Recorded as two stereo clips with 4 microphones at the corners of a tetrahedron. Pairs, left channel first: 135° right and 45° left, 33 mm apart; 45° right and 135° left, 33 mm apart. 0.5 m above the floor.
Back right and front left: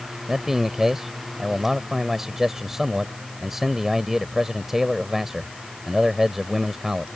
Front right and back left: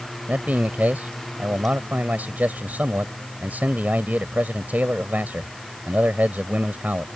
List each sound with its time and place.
0.3 s a man speaking: 120° left